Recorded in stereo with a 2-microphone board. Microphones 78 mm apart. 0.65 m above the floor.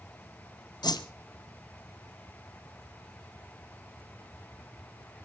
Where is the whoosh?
60° left (ahead or behind), 1.1 m.